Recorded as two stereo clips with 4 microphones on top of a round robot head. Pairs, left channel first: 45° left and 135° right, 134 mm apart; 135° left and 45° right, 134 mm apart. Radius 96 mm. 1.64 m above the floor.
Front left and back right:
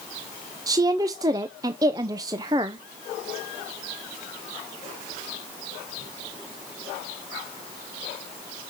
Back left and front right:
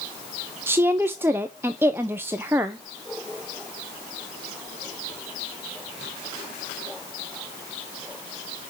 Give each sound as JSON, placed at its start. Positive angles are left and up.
{"t": 0.7, "sound": "a woman speaking", "azimuth_deg": -105, "distance_m": 0.5}